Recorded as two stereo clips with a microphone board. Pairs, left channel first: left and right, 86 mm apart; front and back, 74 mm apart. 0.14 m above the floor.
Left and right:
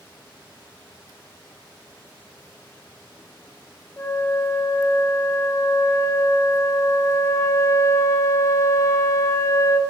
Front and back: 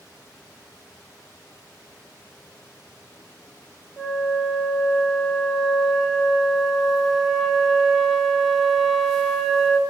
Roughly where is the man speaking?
No man speaking in this recording.